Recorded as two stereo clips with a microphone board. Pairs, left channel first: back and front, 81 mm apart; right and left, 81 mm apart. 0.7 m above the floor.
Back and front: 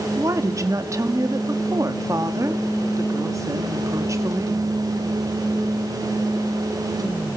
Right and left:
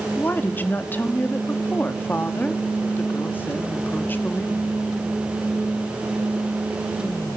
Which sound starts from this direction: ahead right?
A woman speaking, at 0.2 s.